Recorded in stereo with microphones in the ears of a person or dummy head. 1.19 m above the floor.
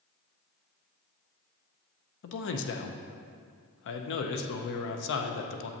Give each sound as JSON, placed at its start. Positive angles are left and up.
{"t": 2.2, "sound": "a man speaking", "side_deg": 70, "distance_m": 0.6}